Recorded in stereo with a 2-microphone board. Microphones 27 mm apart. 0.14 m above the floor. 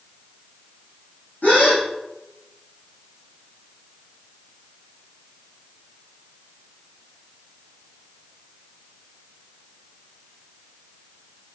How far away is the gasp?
About 5 m.